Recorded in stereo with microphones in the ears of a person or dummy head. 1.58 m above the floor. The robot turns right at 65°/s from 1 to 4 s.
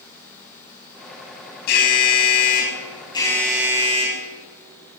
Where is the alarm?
60° left, 2.5 m; by 4.2 s 145° right, 2.5 m.